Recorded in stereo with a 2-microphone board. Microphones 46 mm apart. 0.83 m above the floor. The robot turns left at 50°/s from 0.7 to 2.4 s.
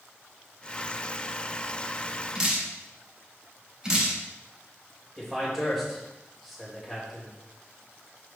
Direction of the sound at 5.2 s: Centre (ahead or behind).